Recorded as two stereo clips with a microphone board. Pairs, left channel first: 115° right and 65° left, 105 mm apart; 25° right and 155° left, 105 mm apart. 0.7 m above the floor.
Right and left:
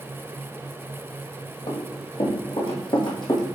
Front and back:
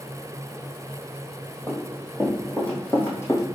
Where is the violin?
No violin in this recording.